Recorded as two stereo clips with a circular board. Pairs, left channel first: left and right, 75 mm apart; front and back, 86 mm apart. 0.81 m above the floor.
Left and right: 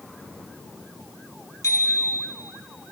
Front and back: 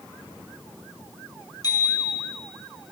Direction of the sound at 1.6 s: 40° left.